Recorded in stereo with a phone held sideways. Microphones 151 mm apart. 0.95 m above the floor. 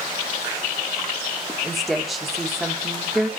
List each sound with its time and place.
1.6 s a woman speaking: centre (ahead or behind), 1.2 m